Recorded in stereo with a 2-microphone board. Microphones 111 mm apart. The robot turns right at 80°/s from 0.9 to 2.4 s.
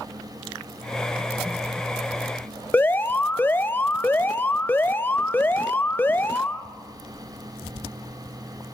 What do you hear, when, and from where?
2.7 s an alarm: 20° left (ahead or behind), 0.6 m